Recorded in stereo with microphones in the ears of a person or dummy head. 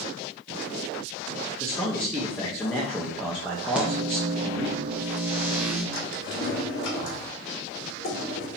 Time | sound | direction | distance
1.6 | a man speaking | centre (ahead or behind) | 0.7 m
3.8 | a microwave | 10° right (ahead or behind) | 0.8 m
5.9 | a drawer | 85° left | 1.7 m